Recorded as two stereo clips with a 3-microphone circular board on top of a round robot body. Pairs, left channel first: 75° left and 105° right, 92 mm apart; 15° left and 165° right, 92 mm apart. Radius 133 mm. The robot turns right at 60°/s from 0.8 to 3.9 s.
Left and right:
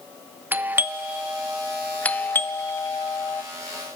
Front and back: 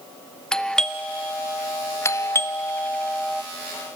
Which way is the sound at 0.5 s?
60° right.